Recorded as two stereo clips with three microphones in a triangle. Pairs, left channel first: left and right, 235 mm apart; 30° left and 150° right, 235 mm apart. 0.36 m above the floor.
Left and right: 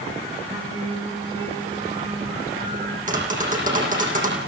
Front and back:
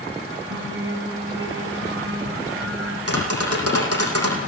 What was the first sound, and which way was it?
Singing, 155° right.